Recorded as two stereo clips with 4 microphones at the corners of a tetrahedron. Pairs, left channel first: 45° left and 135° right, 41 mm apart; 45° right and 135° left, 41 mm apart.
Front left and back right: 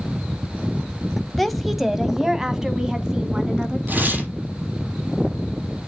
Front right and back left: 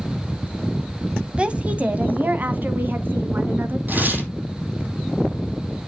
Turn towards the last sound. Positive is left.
turn(degrees=180)